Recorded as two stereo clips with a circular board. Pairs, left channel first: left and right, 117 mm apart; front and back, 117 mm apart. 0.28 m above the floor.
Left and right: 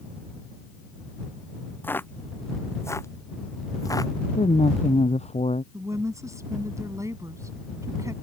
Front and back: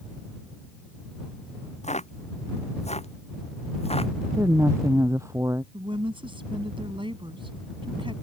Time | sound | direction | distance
1.8 | footsteps | 15° left | ?
4.4 | a woman speaking | 115° left | ?
5.7 | a woman speaking | 150° right | ?